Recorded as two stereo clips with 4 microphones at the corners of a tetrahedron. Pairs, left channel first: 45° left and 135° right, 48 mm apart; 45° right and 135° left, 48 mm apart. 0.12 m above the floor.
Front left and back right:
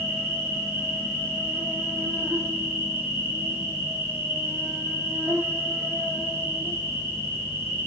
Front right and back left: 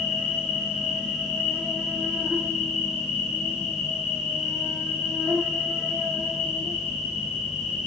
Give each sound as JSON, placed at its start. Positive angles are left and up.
{"t": 0.0, "sound": "an insect", "azimuth_deg": -155, "distance_m": 7.5}